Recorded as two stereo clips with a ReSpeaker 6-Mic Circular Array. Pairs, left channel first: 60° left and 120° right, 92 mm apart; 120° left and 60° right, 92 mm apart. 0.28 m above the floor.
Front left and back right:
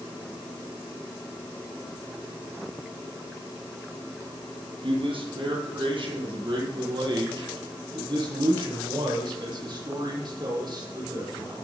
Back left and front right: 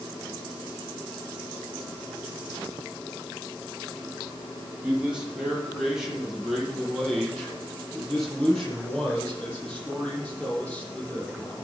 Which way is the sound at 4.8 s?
140° right.